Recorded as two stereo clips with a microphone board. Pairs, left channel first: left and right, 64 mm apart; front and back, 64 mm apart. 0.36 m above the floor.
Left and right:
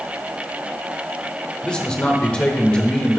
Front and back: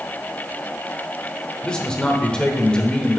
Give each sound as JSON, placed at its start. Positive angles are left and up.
{"t": 1.6, "sound": "a man speaking", "azimuth_deg": 50, "distance_m": 0.8}